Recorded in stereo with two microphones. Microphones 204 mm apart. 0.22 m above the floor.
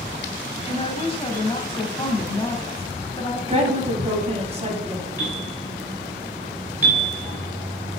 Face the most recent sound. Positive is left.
turn(degrees=15)  # may be behind; listen again after turning